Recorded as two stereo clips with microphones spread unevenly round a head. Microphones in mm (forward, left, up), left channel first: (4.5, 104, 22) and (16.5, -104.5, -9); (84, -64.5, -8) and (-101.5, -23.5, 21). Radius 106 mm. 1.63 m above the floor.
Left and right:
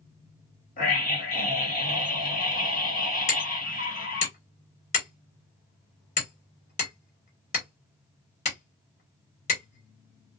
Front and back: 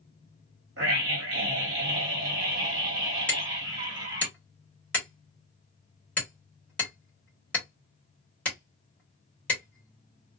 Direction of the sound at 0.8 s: 140° left.